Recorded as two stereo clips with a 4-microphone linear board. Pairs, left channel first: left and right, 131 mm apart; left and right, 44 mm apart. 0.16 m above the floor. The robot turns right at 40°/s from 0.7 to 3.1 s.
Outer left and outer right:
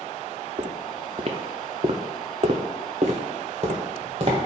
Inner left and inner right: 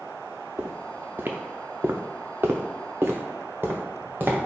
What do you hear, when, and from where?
0.6 s footsteps: 60° right (ahead or behind), 0.9 m; by 4.4 s 45° right (ahead or behind), 1.7 m